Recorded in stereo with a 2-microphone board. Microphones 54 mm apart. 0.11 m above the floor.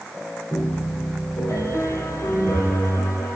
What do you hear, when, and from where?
0.5 s a piano: 60° left (ahead or behind), 4 m